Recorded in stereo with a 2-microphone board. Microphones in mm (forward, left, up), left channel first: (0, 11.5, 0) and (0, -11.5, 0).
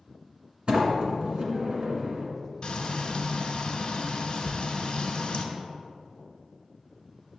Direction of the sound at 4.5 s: 70° left (ahead or behind).